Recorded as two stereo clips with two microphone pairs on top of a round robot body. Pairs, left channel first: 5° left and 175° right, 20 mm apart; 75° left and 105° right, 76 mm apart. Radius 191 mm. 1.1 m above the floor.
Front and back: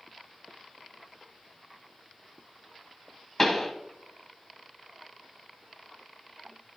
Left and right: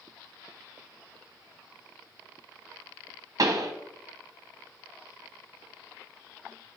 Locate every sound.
3.4 s a pop: 65° right, 0.9 m